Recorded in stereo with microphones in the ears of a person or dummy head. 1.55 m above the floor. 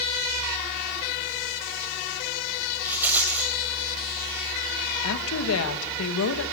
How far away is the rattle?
About 3 m.